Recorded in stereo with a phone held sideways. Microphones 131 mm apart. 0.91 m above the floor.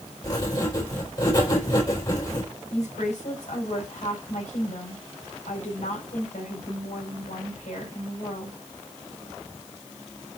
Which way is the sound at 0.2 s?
30° left (ahead or behind).